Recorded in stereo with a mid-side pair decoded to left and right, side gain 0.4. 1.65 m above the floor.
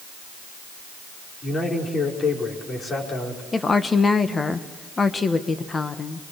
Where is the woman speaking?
35° left, 1.6 m.